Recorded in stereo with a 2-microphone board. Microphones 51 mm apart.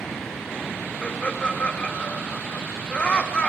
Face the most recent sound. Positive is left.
turn(degrees=25)  # may be behind; listen again after turning